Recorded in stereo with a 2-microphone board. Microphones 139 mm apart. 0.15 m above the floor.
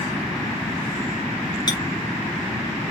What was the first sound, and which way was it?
A clink, 30° left (ahead or behind).